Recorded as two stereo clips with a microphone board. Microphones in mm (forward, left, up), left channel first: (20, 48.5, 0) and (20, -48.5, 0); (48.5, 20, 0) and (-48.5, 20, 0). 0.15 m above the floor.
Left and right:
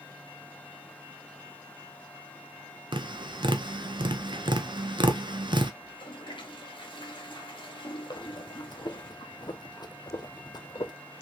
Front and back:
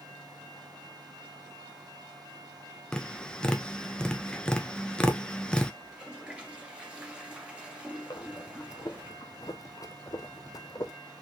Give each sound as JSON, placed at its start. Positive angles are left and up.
{"t": 2.9, "sound": "tapping", "azimuth_deg": -80, "distance_m": 0.7}
{"t": 5.8, "sound": "a toilet flushing", "azimuth_deg": 105, "distance_m": 1.6}
{"t": 8.1, "sound": "breathing", "azimuth_deg": 50, "distance_m": 0.6}